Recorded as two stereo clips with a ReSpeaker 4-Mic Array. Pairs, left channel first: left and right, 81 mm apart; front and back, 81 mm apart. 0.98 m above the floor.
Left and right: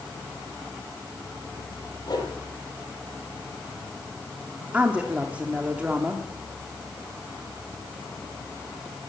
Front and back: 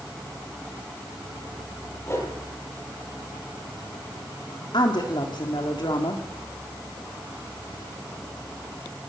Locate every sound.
2.1 s a whoosh: 55° left, 6 m
4.7 s a woman speaking: 20° right, 2.5 m